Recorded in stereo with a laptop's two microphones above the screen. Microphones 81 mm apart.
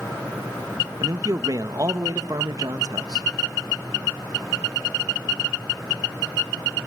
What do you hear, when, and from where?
1.0 s a man speaking: 50° right (ahead or behind), 1.3 m